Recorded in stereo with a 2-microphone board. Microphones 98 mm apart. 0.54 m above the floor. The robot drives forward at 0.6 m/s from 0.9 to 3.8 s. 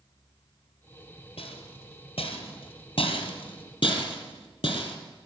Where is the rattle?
80° left, 2.0 m; by 5.0 s 55° left (ahead or behind), 2.5 m.